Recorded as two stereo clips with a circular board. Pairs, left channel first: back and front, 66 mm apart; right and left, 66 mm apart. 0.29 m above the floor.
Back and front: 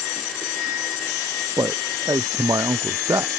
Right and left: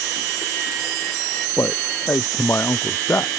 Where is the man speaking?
35° right.